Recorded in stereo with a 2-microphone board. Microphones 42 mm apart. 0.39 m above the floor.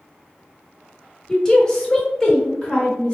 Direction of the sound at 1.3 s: 15° left (ahead or behind).